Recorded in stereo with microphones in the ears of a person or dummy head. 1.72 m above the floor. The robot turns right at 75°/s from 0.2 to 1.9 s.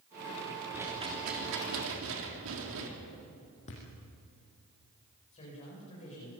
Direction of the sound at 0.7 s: 170° right.